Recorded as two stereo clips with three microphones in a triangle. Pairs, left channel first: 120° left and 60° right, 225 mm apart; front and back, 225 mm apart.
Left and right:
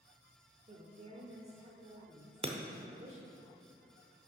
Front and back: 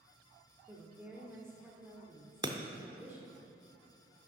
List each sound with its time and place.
0.7 s a woman speaking: 100° right, 0.9 m
2.4 s breaking glass: 110° right, 0.6 m